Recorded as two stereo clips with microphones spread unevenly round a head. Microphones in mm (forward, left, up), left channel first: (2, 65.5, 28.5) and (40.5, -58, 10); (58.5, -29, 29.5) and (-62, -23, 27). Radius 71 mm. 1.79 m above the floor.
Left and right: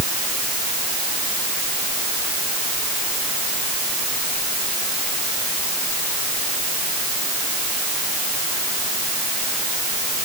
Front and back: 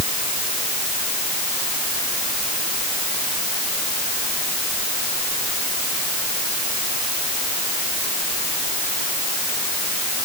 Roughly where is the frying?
No frying in this recording.